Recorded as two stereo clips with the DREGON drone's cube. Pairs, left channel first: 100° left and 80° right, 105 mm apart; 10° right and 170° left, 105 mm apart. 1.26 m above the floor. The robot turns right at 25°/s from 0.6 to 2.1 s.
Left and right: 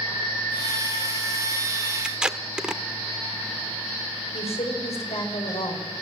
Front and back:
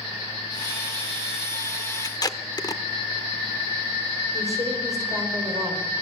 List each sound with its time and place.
2.0 s tape being pulled: straight ahead, 1.0 m
4.3 s a woman speaking: 115° left, 5 m